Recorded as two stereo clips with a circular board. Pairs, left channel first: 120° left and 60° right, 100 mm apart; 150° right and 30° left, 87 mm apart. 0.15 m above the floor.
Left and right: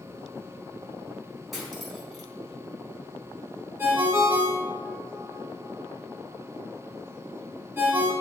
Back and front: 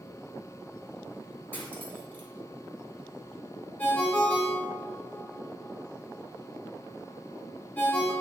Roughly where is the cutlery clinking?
Behind right.